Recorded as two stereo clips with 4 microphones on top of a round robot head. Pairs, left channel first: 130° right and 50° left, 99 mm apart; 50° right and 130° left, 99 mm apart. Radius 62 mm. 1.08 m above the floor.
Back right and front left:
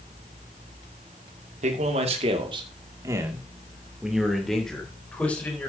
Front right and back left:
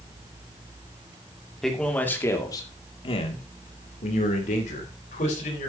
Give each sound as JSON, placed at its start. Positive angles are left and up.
{"t": 1.6, "sound": "a man speaking", "azimuth_deg": 35, "distance_m": 2.5}